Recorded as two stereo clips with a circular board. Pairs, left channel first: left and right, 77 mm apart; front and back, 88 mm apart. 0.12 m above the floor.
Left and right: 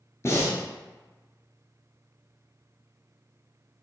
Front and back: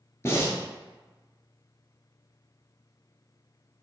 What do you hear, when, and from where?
0.2 s breathing: 50° left, 1.0 m